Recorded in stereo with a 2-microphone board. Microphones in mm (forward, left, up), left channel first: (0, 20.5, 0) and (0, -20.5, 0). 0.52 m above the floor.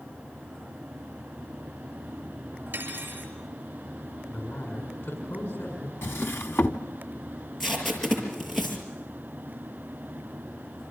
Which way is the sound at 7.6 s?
10° left (ahead or behind).